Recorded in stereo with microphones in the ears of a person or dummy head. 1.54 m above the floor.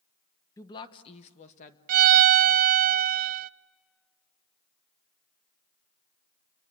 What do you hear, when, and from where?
0.6 s a woman speaking: 15° left (ahead or behind), 1.1 m; by 1.8 s 40° left (ahead or behind), 2 m
1.9 s a violin: 50° right (ahead or behind), 0.6 m